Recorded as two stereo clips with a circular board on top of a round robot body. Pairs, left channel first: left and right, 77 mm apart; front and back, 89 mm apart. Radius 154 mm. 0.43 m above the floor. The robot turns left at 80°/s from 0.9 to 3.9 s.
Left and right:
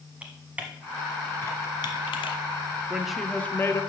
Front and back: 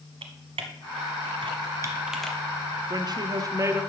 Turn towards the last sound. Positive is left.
turn(degrees=120)